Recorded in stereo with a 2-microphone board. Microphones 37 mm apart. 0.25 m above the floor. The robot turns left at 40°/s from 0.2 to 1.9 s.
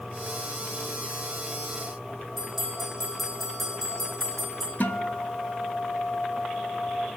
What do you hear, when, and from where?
2.4 s a bell: centre (ahead or behind), 4.5 m
4.8 s a guitar: 55° left (ahead or behind), 1.0 m